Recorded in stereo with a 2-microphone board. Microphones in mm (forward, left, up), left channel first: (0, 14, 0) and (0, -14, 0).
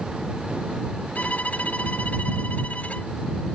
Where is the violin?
60° left (ahead or behind).